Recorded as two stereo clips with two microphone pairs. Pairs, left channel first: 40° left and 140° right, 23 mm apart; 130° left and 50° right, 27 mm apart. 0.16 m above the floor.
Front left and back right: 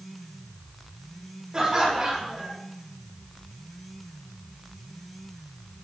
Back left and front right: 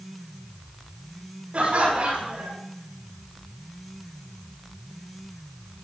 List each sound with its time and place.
1.5 s laughter: 90° right, 7.5 m